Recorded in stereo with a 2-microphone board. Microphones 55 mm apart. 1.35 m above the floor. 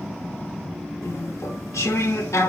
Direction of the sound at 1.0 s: 70° left (ahead or behind).